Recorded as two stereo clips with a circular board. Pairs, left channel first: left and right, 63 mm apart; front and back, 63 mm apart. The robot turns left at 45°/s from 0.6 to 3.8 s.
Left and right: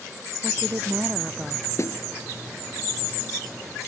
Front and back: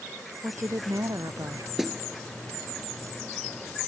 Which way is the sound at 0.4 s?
135° right.